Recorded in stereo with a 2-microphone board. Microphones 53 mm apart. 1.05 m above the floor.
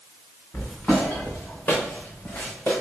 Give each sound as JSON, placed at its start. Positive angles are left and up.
{"t": 0.5, "sound": "footsteps", "side_deg": 30, "distance_m": 3.5}